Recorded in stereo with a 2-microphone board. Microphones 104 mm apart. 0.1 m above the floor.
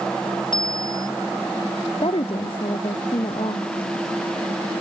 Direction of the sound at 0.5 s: 50° left (ahead or behind).